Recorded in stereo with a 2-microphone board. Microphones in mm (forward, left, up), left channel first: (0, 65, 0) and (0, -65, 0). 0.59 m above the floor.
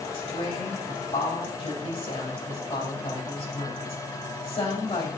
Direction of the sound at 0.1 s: 55° left (ahead or behind).